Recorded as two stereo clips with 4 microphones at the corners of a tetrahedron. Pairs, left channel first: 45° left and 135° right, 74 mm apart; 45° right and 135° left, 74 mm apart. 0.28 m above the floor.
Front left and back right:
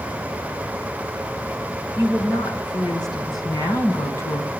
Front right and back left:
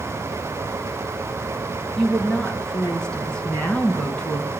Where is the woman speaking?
35° left, 3 m; by 4.5 s 25° left, 1.8 m.